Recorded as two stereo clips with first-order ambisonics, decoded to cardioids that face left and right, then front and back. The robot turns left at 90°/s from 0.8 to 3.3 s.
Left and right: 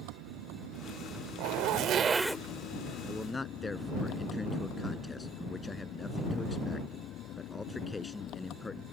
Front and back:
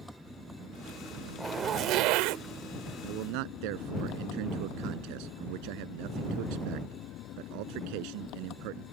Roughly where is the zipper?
Right.